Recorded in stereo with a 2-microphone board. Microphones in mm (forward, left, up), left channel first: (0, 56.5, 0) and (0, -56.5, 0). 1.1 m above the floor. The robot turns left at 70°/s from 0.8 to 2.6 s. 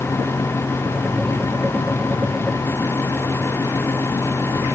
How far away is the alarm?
No alarm in this recording.